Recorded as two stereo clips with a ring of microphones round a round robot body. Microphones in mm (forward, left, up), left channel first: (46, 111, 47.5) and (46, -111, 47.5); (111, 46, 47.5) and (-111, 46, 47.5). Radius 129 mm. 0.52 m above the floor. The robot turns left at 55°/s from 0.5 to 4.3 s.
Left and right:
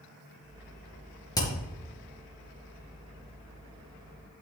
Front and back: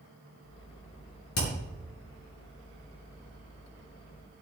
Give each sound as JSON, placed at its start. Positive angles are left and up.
{"t": 1.4, "sound": "hammering", "azimuth_deg": 20, "distance_m": 5.0}